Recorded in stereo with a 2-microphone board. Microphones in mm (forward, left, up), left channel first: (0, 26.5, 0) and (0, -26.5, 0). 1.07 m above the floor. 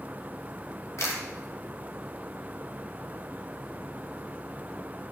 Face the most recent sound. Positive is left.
turn(degrees=65)  # may be behind; listen again after turning